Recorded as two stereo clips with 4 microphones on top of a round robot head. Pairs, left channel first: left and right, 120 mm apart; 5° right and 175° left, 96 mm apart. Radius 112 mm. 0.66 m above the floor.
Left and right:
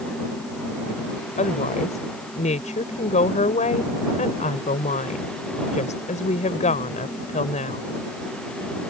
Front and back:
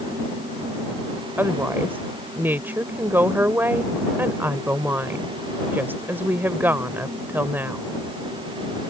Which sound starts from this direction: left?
A woman speaking, at 1.4 s.